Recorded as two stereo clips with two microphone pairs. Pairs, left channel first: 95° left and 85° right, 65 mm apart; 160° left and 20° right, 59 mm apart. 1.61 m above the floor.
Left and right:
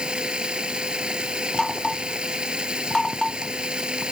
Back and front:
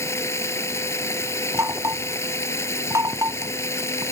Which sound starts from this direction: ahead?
Knocking, at 1.5 s.